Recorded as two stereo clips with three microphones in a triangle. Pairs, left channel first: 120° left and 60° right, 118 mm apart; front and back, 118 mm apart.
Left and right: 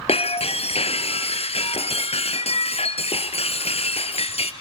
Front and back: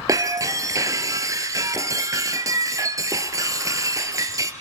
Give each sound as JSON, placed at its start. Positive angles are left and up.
{"t": 0.1, "sound": "breaking glass", "azimuth_deg": 125, "distance_m": 1.8}